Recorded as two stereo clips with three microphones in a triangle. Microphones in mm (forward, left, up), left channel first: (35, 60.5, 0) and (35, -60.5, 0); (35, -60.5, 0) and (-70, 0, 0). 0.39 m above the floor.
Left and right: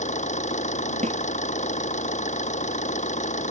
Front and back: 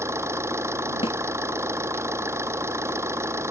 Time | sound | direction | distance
0.0 | an engine running | 80° left | ?
1.0 | a snare drum | 70° right | ?